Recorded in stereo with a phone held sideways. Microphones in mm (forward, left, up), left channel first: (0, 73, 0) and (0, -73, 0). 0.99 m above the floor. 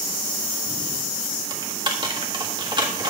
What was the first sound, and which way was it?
Typing on a keyboard, 30° right (ahead or behind).